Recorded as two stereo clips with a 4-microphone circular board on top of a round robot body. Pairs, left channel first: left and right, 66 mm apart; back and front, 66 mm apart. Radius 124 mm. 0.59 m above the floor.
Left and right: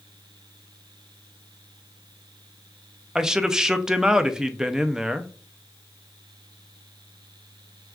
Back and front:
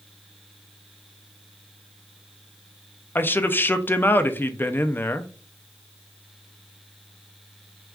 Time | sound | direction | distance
3.1 | a man speaking | 165° right | 0.6 m